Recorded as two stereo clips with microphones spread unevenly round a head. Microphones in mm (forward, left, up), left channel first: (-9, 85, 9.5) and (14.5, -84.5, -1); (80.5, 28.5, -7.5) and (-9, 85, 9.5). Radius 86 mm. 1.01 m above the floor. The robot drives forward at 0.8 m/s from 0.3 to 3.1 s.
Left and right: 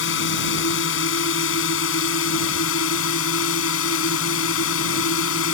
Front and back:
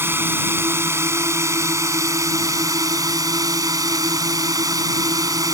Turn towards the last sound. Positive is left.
turn(degrees=90)